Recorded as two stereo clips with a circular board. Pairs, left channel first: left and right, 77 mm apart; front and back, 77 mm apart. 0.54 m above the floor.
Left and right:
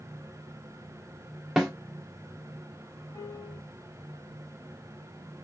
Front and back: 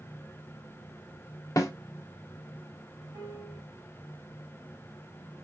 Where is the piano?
140° left, 2.5 m.